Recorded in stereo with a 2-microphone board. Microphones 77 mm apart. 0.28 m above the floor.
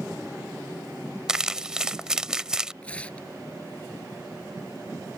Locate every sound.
1.3 s crumpling: 10° right (ahead or behind)
2.8 s tearing paper: 15° left (ahead or behind)